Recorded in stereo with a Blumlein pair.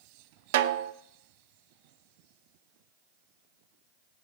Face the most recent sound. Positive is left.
turn(degrees=-55)